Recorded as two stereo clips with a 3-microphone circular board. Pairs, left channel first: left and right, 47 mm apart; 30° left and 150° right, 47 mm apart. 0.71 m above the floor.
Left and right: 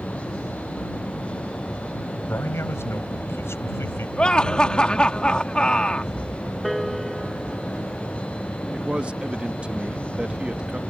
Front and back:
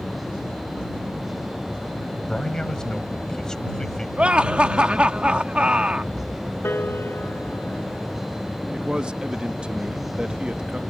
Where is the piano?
Straight ahead.